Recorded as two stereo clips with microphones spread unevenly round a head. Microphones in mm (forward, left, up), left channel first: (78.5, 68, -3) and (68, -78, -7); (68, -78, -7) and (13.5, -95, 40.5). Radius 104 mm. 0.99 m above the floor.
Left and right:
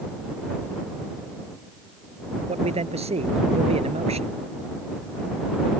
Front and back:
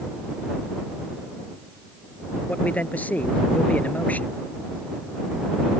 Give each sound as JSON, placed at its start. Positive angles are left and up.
{"t": 2.5, "sound": "a man speaking", "azimuth_deg": -50}